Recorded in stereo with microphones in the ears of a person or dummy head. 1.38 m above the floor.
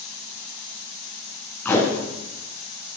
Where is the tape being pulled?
10° left (ahead or behind), 2.5 m.